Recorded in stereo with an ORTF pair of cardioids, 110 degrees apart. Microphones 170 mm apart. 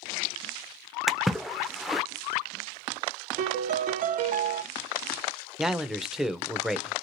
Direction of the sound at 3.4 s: 60° right.